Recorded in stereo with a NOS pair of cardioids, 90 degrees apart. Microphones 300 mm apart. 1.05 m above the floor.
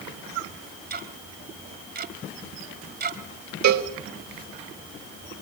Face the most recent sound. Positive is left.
turn(degrees=-65)